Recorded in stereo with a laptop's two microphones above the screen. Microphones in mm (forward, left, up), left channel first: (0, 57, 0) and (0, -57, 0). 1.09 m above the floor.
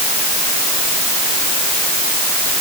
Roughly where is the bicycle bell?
I don't hear a bicycle bell.